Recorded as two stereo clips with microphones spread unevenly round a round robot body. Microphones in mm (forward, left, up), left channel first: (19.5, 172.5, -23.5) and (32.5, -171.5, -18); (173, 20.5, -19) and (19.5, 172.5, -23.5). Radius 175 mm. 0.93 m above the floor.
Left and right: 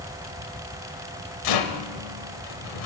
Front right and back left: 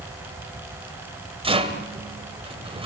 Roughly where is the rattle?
Left.